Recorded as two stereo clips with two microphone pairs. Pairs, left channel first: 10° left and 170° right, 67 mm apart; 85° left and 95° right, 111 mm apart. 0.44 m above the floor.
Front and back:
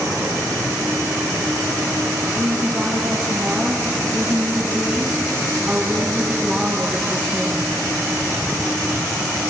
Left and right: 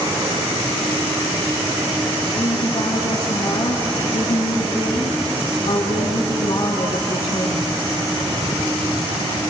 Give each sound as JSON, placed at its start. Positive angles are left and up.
{"t": 2.3, "sound": "a woman speaking", "azimuth_deg": 125, "distance_m": 5.5}